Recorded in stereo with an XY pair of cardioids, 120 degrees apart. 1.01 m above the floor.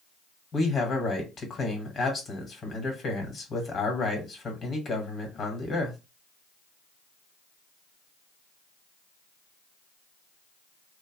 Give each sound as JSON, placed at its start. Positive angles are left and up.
{"t": 0.5, "sound": "a man speaking", "azimuth_deg": 35, "distance_m": 1.3}